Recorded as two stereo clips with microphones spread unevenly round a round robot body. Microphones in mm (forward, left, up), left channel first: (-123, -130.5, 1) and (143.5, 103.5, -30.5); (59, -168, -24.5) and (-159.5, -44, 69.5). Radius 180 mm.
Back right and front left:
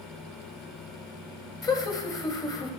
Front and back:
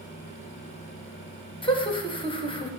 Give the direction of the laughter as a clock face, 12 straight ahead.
2 o'clock.